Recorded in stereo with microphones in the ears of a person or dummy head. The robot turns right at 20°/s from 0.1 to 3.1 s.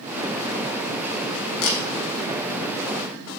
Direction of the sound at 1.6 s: 80° left.